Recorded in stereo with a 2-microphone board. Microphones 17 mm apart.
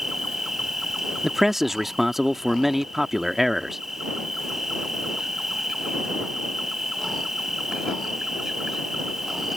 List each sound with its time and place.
0.0 s an insect: 20° right (ahead or behind)
1.2 s a man speaking: 20° right (ahead or behind)